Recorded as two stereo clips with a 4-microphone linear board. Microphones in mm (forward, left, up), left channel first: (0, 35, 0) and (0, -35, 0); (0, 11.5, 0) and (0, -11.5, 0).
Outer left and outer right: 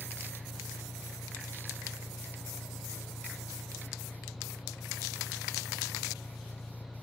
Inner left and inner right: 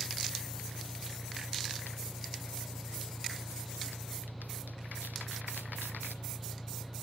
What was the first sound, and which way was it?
An engine running, 35° left (ahead or behind).